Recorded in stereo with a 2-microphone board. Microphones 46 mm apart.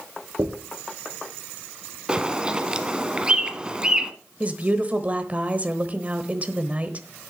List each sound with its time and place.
0.4 s a dropped coin: 75° right (ahead or behind), 3 m
2.1 s a bird: 20° right (ahead or behind), 1.0 m
4.4 s a woman speaking: 30° right (ahead or behind), 1.0 m